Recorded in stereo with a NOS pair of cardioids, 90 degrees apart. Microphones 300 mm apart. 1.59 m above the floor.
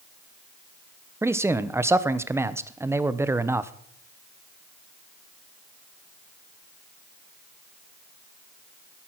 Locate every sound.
1.2 s a man speaking: 10° right, 1.0 m